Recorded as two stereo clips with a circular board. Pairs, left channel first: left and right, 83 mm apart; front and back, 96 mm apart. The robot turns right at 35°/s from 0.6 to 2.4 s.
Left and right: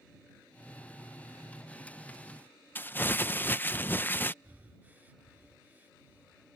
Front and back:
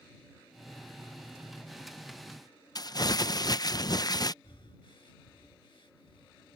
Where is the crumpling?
30° left.